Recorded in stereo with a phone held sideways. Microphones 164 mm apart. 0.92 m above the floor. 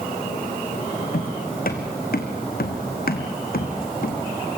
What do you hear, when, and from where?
1.1 s footsteps: 60° left (ahead or behind), 3 m